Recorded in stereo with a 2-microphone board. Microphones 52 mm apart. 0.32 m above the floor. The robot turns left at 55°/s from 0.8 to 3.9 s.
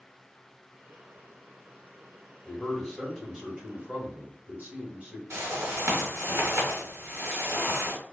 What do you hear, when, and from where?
2.5 s a man speaking: 25° left, 1.2 m; by 5.2 s 55° right, 1.2 m
5.3 s a whoosh: 65° right (ahead or behind), 1.5 m